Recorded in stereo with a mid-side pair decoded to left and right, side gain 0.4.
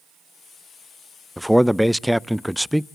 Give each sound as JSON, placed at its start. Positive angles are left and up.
{"t": 1.4, "sound": "a man speaking", "azimuth_deg": 0, "distance_m": 0.5}